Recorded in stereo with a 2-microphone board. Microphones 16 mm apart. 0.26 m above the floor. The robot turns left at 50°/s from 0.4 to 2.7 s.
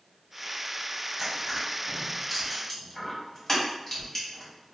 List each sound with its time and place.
1.2 s crushing: 25° right (ahead or behind), 1.3 m; by 4.7 s 20° left (ahead or behind), 1.3 m